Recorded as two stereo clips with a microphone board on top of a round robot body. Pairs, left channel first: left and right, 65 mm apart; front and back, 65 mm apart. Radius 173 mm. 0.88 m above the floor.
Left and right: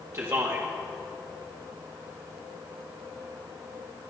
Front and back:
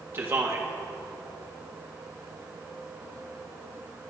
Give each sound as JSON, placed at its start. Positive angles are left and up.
{"t": 0.1, "sound": "a man speaking", "azimuth_deg": -130, "distance_m": 1.5}